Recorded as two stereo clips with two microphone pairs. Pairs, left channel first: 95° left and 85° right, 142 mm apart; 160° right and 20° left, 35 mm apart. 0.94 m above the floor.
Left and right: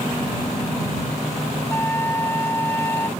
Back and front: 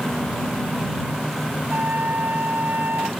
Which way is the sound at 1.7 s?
20° left.